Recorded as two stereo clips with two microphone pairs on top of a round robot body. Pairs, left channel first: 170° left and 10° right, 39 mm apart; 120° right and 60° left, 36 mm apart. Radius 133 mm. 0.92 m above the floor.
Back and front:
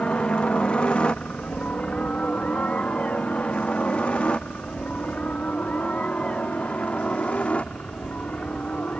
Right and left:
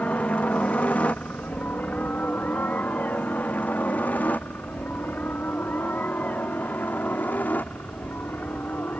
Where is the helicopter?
140° right.